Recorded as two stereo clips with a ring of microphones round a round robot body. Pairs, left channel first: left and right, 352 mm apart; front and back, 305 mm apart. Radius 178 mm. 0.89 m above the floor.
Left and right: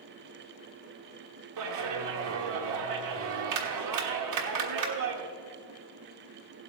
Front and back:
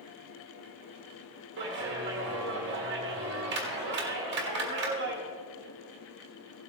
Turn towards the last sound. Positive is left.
turn(degrees=-125)